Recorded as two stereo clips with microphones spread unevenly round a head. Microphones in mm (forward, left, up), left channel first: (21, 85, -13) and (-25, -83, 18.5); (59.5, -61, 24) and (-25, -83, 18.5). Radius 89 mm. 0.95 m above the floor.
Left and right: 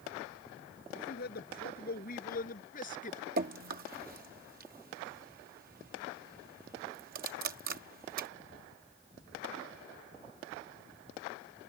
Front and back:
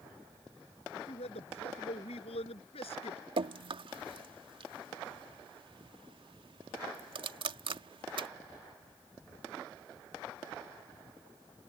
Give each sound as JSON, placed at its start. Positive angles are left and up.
{"t": 0.9, "sound": "a man speaking", "azimuth_deg": 35}
{"t": 3.4, "sound": "dripping", "azimuth_deg": -150}